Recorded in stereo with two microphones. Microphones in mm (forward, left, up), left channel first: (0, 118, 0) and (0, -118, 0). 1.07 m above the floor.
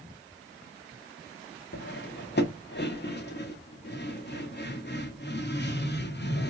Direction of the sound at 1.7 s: 45° left (ahead or behind).